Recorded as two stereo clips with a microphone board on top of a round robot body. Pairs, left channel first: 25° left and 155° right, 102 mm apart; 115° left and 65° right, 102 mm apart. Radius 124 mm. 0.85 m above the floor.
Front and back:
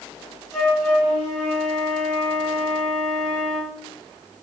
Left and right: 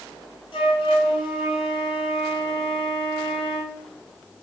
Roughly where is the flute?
Behind left.